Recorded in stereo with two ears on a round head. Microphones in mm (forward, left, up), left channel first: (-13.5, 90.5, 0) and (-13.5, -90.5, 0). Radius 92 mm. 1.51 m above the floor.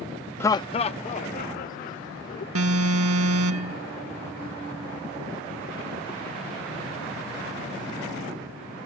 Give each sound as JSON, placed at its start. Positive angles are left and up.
{"t": 0.4, "sound": "laughter", "side_deg": 10}
{"t": 2.5, "sound": "an alarm", "side_deg": -85}